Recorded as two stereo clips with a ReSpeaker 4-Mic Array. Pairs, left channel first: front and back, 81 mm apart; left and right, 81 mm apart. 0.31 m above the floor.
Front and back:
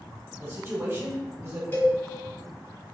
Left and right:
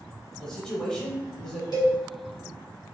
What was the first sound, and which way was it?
A man speaking, 165° left.